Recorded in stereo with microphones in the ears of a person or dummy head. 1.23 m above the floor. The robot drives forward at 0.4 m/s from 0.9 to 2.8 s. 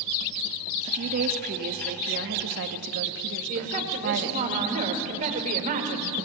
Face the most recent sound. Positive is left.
turn(degrees=-40)  # may be behind; listen again after turning